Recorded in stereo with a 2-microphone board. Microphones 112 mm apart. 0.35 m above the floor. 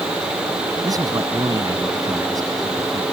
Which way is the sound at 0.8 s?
35° right (ahead or behind).